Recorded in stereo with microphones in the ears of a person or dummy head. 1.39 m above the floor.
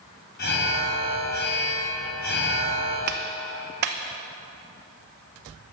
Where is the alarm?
55° left (ahead or behind), 2.5 m.